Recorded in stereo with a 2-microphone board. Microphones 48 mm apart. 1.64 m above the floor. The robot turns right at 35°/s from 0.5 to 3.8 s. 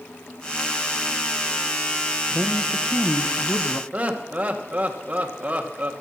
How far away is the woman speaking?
About 1.1 m.